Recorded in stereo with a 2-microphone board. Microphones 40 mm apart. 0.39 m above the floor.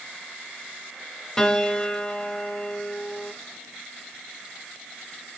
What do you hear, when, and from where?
1.4 s a piano: 15° left (ahead or behind), 1.0 m